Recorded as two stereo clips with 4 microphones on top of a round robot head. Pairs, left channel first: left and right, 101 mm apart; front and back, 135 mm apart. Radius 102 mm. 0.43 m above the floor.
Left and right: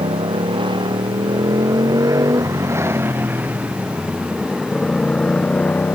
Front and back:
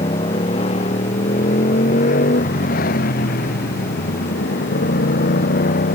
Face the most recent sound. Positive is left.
turn(degrees=15)